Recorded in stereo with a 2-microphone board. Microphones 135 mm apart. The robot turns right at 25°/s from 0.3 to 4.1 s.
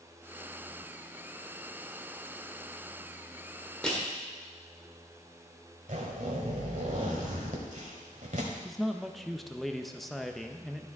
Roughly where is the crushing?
Centre.